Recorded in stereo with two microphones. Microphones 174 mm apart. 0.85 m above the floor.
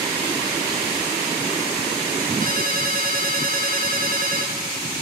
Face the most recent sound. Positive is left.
turn(degrees=-50)  # may be behind; listen again after turning